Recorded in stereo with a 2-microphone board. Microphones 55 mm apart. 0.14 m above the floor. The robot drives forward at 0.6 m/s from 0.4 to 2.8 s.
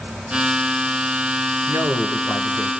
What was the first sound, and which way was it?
A man speaking, 55° right (ahead or behind).